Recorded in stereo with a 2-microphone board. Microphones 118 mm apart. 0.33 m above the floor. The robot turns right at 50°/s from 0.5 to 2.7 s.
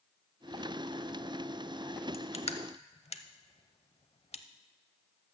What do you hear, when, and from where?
2.1 s crushing: 55° left (ahead or behind), 0.6 m; by 4.4 s 60° left (ahead or behind), 0.6 m